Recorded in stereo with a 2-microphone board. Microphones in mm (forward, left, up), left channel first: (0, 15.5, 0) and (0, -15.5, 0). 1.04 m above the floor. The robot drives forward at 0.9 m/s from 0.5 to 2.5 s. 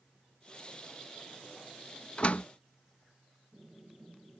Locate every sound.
2.2 s a door slam: 40° left (ahead or behind); by 2.5 s 55° left (ahead or behind)